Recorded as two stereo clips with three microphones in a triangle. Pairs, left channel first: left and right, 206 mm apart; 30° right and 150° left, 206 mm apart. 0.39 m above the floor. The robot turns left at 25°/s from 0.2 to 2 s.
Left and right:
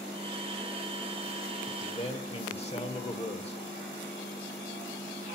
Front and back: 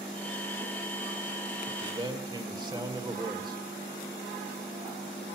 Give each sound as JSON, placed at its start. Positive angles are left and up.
{"t": 1.7, "sound": "a man speaking", "azimuth_deg": 115, "distance_m": 1.1}